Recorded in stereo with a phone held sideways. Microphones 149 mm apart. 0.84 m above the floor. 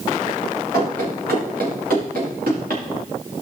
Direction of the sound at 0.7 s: 80° right.